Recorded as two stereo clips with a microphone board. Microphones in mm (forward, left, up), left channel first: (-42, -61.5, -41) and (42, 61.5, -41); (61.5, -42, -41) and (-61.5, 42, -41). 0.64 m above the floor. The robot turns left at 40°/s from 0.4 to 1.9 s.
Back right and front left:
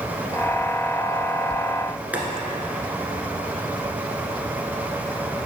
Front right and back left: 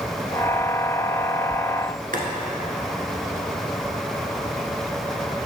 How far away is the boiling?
About 1.3 m.